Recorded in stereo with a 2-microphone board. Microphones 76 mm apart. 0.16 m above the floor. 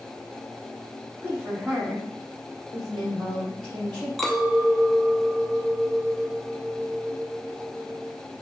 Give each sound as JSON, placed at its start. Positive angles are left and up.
{"t": 1.2, "sound": "a woman speaking", "side_deg": -25, "distance_m": 1.2}
{"t": 4.2, "sound": "a clink", "side_deg": 0, "distance_m": 0.6}